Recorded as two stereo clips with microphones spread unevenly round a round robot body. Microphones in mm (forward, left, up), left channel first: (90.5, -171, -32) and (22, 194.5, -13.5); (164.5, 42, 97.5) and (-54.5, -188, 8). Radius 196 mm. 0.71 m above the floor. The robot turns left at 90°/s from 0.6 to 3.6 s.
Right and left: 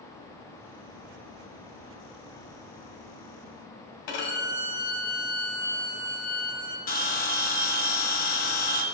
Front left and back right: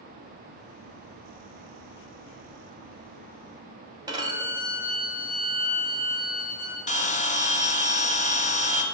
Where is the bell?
30° right, 1.4 m.